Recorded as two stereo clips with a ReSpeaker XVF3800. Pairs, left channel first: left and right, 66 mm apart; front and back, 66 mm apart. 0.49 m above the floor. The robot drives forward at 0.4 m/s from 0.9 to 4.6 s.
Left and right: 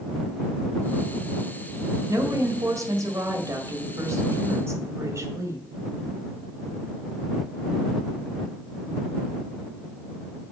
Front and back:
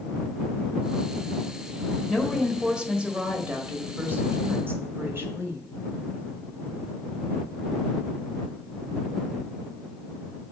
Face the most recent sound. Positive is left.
turn(degrees=-125)